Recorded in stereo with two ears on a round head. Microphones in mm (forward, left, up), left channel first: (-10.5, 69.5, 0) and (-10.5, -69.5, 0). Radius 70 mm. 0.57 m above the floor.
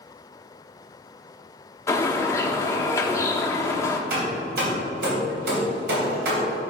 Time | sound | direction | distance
1.9 | a bird | 20° left (ahead or behind) | 0.9 m
4.1 | hammering | 75° right (ahead or behind) | 3 m